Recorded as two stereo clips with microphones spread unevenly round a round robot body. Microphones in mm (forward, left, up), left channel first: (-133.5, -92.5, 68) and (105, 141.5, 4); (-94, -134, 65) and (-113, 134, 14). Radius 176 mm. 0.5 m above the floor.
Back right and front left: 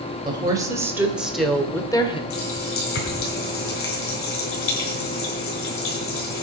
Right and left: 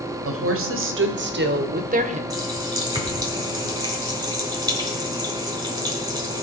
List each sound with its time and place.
0.2 s a woman speaking: 115° left, 2.5 m; by 2.2 s 145° left, 1.6 m
2.3 s a running tap: 170° left, 4 m